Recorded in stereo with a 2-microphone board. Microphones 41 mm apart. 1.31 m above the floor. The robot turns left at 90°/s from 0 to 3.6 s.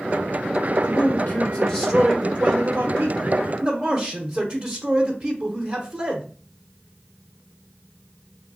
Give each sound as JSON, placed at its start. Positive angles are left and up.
{"t": 0.8, "sound": "a man speaking", "azimuth_deg": 105, "distance_m": 0.8}